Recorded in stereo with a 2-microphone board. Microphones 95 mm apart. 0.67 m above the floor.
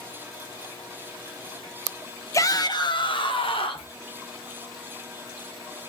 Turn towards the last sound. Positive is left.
turn(degrees=70)  # may be behind; listen again after turning